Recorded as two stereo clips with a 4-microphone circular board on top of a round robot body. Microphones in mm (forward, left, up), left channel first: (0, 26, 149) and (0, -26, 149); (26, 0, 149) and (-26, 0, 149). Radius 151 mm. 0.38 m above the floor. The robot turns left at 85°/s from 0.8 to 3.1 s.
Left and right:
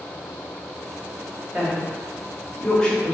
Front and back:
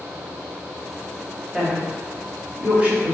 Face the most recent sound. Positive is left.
turn(degrees=130)